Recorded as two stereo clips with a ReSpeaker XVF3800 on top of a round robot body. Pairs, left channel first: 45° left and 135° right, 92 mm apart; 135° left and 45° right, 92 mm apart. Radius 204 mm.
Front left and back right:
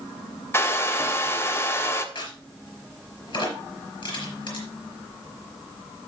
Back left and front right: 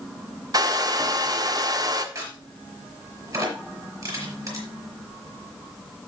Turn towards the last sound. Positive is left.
turn(degrees=5)